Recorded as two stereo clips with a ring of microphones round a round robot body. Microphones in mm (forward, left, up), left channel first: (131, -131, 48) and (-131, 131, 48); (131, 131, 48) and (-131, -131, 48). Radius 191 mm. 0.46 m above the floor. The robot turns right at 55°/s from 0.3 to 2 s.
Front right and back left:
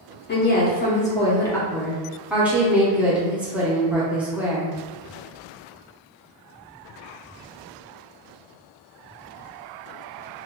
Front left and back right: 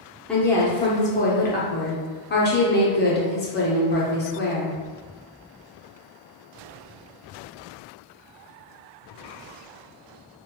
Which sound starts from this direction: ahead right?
A woman speaking, at 0.3 s.